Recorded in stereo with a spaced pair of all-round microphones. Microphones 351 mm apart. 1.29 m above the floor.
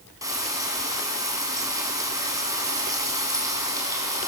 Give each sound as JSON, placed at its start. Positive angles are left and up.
{"t": 0.2, "sound": "frying", "side_deg": -10, "distance_m": 5.0}